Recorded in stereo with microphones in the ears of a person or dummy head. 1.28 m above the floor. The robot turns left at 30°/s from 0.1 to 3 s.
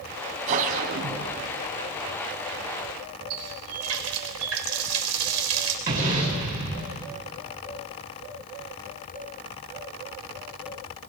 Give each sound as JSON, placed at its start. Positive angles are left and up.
{"t": 0.5, "sound": "a whoosh", "azimuth_deg": -45, "distance_m": 3.5}
{"t": 3.3, "sound": "a running tap", "side_deg": -85, "distance_m": 3.5}
{"t": 5.9, "sound": "an explosion", "side_deg": -45, "distance_m": 7.5}